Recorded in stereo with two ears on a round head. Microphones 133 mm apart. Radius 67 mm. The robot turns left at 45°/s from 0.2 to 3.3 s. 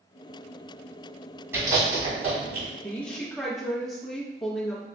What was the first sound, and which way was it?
Chewing, 15° right (ahead or behind).